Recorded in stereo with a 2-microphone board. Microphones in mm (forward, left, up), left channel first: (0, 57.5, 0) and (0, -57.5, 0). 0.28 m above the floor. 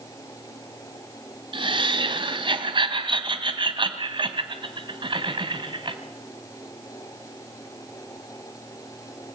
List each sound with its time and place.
1.5 s laughter: 45° right (ahead or behind), 1.9 m